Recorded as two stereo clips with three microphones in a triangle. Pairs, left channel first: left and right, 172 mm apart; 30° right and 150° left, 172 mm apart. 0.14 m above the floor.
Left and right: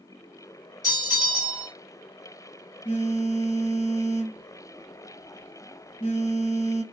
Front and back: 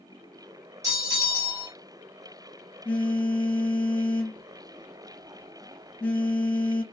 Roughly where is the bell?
Behind left.